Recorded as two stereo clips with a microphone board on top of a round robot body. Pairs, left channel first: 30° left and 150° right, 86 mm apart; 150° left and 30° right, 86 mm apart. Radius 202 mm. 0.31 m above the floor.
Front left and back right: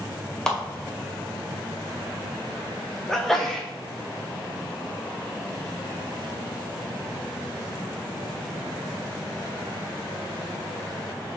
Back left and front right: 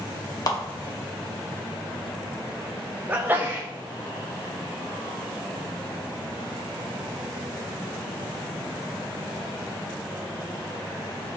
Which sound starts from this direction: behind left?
A clap, at 0.5 s.